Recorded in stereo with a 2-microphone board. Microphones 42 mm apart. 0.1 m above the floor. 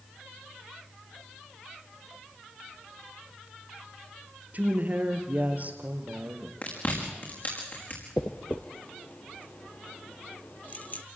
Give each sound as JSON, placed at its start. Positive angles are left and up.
{"t": 4.5, "sound": "a woman speaking", "side_deg": -40, "distance_m": 2.0}
{"t": 6.6, "sound": "chewing", "side_deg": 45, "distance_m": 5.0}
{"t": 8.2, "sound": "a dropped coin", "side_deg": 40, "distance_m": 1.1}